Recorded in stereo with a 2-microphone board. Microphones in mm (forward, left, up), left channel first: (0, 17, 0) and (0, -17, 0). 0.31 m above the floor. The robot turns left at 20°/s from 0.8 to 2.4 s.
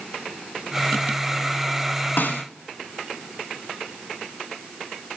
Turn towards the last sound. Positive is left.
turn(degrees=70)  # may be behind; listen again after turning